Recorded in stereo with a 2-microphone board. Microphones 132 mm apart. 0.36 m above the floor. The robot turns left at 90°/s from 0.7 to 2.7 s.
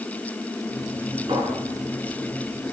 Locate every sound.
1.3 s a clink: 40° right (ahead or behind), 3.5 m; by 1.5 s 65° right (ahead or behind), 3.5 m